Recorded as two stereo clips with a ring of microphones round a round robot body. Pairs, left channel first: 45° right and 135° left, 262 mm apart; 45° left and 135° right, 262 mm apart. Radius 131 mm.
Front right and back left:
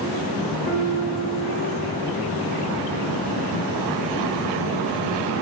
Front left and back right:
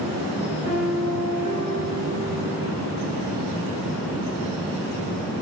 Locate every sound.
0.7 s a piano: 165° left, 5.5 m